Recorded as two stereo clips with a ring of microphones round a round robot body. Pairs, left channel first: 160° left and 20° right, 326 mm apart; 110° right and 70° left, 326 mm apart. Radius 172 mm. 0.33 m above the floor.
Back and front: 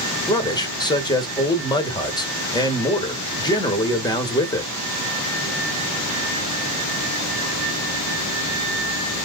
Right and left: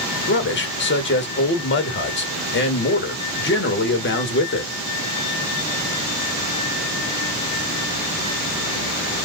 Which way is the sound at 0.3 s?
135° right.